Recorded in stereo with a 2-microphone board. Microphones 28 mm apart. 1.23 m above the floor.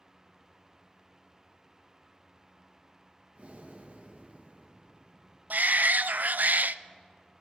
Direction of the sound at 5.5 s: 70° right (ahead or behind).